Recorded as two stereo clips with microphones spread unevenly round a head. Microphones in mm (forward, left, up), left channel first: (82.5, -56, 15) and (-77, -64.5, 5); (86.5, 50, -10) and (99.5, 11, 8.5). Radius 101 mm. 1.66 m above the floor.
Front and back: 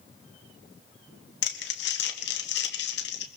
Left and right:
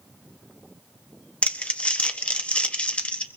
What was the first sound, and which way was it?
Crumpling, 45° left.